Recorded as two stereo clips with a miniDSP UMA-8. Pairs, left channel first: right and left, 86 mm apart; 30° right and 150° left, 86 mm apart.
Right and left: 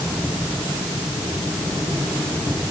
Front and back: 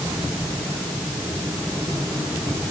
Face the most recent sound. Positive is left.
No sound to turn to.